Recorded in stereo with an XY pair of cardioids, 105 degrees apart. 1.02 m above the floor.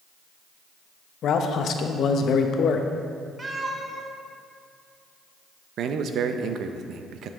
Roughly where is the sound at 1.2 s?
Ahead left.